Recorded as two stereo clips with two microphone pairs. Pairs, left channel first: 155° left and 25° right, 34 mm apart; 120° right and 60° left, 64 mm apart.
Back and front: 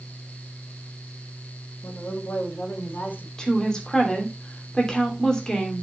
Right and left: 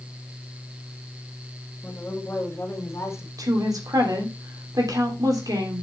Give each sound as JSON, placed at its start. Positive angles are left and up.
{"t": 1.8, "sound": "a woman speaking", "azimuth_deg": 180, "distance_m": 2.5}
{"t": 3.4, "sound": "a woman speaking", "azimuth_deg": 85, "distance_m": 3.0}